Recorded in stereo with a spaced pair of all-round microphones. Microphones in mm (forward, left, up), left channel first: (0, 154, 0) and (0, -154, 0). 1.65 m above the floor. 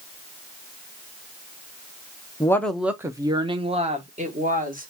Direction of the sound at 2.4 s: 10° left (ahead or behind).